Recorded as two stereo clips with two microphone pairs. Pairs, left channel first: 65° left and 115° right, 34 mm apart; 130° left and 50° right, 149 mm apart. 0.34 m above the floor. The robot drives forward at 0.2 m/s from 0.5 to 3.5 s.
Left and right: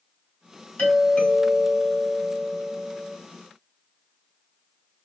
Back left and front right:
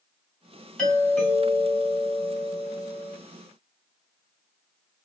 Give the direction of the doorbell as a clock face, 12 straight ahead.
10 o'clock.